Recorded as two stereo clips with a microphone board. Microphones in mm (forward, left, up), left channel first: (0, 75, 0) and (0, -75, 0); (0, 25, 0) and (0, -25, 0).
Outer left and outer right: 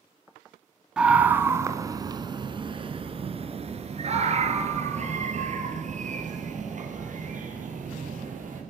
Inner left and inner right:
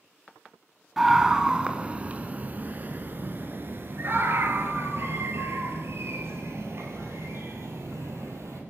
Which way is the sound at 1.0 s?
5° right (ahead or behind).